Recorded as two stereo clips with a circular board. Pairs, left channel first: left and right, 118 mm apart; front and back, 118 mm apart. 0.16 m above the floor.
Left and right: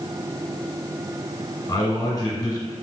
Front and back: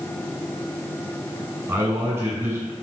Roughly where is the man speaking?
Behind left.